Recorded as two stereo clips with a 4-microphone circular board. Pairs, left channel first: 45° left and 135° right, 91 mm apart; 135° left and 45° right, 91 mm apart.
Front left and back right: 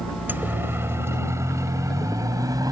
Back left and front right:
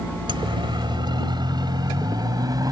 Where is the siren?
65° right; by 2.7 s 90° right.